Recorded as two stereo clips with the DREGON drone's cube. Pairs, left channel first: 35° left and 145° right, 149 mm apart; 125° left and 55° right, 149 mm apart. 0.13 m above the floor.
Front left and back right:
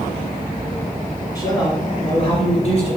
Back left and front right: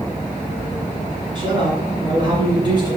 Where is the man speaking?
20° right, 1.9 m; by 3.0 s straight ahead, 2.5 m.